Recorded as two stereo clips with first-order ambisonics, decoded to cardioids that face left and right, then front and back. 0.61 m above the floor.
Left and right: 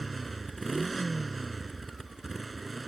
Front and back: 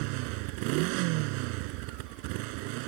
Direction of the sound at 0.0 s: 170° right.